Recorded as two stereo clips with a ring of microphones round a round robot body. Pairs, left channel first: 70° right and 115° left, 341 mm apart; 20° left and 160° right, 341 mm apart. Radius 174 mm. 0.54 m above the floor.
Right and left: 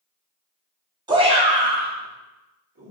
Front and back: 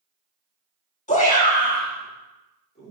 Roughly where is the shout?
Ahead left.